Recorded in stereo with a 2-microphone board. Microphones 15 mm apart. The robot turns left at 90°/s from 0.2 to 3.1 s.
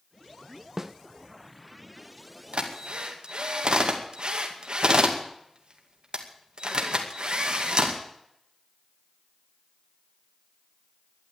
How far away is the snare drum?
About 1.0 m.